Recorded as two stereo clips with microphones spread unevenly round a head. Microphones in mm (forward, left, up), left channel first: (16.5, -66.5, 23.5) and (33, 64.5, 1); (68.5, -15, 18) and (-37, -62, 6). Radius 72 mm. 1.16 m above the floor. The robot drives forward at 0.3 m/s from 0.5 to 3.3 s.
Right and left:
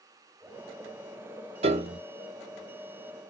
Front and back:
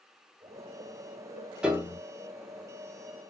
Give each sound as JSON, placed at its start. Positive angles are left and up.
{"t": 1.6, "sound": "a piano", "azimuth_deg": 115, "distance_m": 0.6}